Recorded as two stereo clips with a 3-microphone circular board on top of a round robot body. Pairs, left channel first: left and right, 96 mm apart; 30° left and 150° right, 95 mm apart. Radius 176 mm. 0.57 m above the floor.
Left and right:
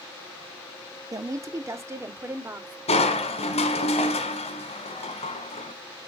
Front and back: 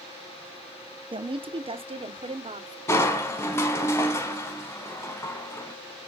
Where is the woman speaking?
135° right, 1.3 m; by 2.8 s 155° right, 2.5 m.